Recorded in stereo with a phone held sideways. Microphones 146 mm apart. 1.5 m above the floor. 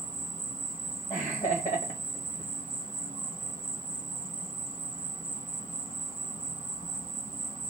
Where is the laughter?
55° left (ahead or behind), 1.7 m.